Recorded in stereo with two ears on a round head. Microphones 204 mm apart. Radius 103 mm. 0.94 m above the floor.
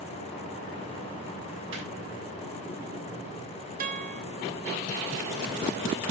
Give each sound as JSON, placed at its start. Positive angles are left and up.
{"t": 1.7, "sound": "laughter", "side_deg": -60, "distance_m": 6.5}
{"t": 3.8, "sound": "a guitar", "side_deg": -35, "distance_m": 0.8}